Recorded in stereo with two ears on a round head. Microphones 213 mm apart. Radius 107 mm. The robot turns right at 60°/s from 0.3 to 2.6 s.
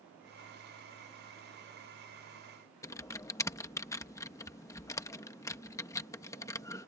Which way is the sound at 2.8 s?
15° left (ahead or behind).